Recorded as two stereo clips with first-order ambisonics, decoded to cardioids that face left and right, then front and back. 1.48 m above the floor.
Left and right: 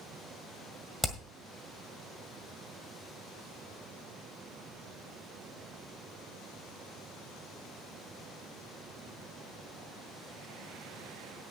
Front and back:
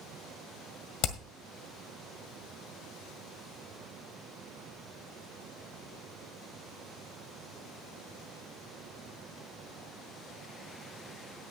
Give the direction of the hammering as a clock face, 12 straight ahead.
12 o'clock.